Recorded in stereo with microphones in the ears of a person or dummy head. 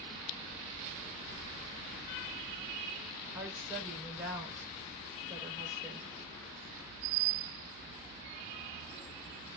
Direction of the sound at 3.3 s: 10° right (ahead or behind).